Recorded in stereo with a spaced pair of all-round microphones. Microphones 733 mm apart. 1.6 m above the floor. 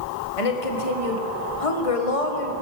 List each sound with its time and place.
0.4 s a woman speaking: 50° left (ahead or behind), 1.8 m